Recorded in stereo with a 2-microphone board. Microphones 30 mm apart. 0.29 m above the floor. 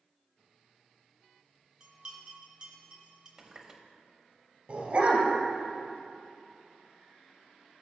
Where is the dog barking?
45° right (ahead or behind), 2 m.